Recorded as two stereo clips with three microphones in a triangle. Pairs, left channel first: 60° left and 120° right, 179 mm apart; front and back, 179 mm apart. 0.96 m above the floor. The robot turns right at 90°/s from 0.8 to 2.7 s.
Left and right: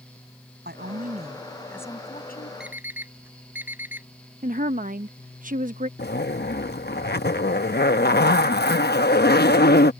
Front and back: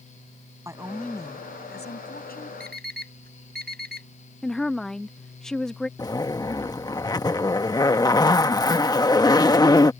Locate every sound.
0.7 s a woman speaking: 105° right; by 2.5 s 45° left
2.6 s an alarm clock: 155° left; by 4.1 s 165° left
4.4 s a woman speaking: 85° right
6.0 s a zipper: 70° left